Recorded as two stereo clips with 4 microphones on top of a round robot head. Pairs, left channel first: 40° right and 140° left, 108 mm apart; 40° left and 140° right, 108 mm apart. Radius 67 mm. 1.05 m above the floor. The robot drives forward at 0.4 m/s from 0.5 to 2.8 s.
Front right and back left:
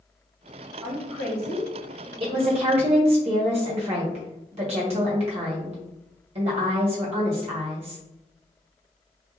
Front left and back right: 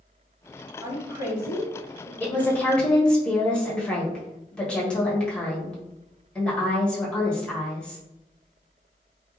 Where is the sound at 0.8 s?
165° left, 1.6 m; by 2.1 s 170° left, 2 m.